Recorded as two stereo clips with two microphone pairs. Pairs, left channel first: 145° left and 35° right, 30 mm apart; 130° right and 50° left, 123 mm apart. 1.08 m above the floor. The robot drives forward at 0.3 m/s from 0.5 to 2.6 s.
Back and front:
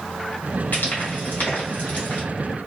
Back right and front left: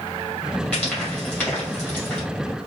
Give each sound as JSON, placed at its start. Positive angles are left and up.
{"t": 0.7, "sound": "frying", "azimuth_deg": 150, "distance_m": 1.8}